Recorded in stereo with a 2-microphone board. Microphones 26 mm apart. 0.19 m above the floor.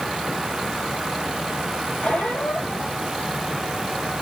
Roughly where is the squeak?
Left.